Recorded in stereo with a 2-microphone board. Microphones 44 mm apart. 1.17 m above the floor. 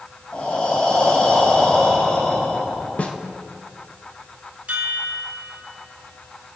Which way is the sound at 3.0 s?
35° left (ahead or behind).